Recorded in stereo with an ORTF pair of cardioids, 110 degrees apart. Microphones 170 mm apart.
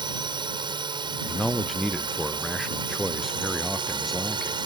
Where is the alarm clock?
I don't hear an alarm clock.